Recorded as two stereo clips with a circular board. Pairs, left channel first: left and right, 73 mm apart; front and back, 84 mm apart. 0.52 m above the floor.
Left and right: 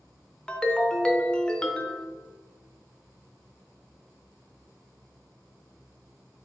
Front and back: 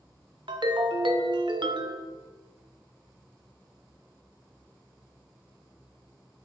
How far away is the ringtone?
About 0.6 m.